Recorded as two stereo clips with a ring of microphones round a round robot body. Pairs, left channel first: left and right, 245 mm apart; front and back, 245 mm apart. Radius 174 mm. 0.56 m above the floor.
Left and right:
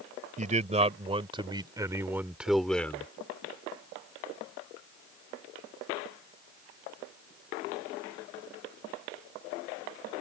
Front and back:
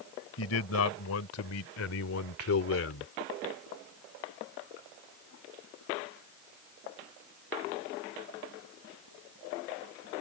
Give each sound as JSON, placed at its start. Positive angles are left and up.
{"t": 0.4, "sound": "a man speaking", "azimuth_deg": -30}